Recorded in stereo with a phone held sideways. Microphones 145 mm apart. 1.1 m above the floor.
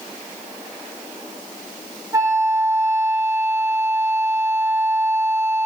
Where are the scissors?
I don't hear scissors.